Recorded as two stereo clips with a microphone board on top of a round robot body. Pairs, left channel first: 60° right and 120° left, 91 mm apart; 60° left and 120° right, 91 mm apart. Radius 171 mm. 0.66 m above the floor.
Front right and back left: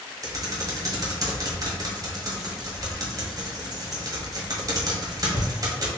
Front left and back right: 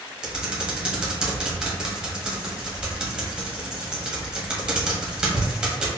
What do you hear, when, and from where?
0.2 s typing on a keyboard: 165° left, 1.8 m